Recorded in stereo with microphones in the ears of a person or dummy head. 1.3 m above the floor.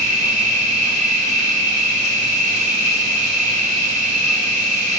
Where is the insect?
30° right (ahead or behind), 1.8 m.